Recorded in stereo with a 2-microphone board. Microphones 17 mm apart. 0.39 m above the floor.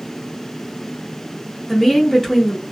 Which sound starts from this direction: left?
A woman speaking, at 1.7 s.